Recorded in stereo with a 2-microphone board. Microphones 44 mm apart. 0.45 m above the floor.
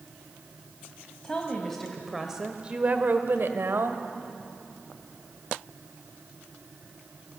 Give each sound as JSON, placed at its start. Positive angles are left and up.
{"t": 1.2, "sound": "a woman speaking", "side_deg": 20, "distance_m": 2.5}